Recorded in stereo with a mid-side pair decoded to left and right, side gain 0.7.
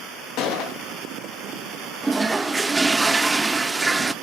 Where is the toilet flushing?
15° right, 0.6 m.